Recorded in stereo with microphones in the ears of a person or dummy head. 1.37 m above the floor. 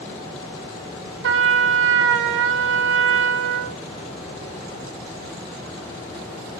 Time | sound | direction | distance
1.2 | a trumpet | 60° right (ahead or behind) | 0.6 m